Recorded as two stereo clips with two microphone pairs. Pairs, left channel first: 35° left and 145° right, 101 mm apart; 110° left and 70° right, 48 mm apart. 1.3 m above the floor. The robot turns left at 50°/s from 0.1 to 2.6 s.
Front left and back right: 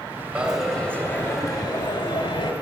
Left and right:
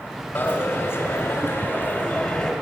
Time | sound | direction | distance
0.3 | a dropped coin | 140° left | 2 m